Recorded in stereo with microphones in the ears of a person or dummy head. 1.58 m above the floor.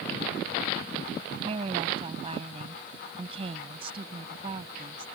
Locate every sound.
1.4 s a woman speaking: 35° right (ahead or behind)